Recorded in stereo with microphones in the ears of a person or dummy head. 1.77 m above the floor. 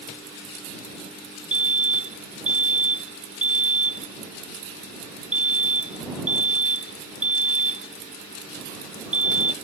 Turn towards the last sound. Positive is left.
turn(degrees=-10)  # may be behind; listen again after turning